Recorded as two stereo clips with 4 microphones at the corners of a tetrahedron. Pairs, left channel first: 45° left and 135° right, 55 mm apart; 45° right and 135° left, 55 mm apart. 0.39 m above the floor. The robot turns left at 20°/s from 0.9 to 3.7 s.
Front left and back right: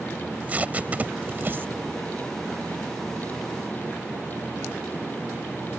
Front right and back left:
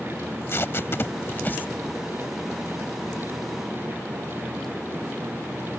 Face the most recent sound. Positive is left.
turn(degrees=-135)